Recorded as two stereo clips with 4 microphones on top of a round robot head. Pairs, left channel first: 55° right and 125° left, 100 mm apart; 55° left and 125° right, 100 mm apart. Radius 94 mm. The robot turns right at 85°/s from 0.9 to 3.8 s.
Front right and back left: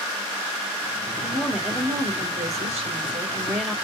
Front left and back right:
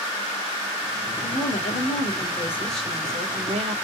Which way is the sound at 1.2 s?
5° left.